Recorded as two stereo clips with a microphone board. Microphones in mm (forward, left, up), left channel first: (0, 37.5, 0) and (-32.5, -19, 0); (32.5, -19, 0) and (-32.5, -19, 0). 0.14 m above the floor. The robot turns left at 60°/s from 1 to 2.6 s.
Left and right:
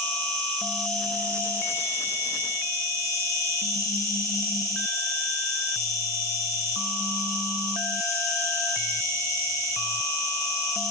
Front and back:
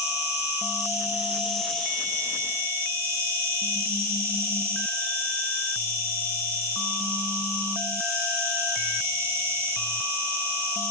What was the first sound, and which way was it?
An insect, 125° left.